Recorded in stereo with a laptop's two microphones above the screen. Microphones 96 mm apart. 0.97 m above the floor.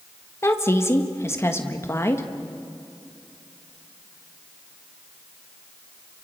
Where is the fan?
No fan in this recording.